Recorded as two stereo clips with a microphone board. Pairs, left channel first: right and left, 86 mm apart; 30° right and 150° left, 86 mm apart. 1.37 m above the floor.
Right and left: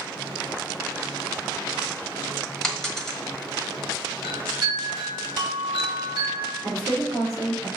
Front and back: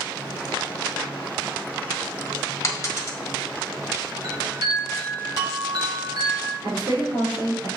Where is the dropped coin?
10° right, 1.4 m.